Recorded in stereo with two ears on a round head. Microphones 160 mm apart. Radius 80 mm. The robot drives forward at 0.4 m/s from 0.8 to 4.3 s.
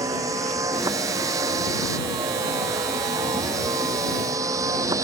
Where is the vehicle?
20° right (ahead or behind).